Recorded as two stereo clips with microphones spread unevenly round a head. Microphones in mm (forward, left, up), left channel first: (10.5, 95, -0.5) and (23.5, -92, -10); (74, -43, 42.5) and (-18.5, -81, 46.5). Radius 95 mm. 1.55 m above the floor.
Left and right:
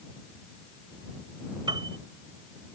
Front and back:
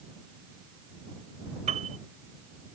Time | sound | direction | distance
1.7 | a piano | 155° right | ?